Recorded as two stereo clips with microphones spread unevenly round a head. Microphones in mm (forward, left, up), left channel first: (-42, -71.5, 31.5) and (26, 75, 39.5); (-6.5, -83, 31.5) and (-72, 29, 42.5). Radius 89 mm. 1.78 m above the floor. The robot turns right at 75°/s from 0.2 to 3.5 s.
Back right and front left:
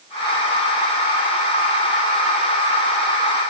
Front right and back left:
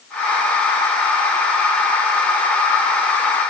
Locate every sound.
Only background noise.